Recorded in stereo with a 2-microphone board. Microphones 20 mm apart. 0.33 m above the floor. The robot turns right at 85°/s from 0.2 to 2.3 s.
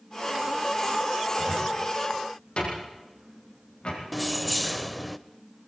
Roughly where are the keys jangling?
Centre.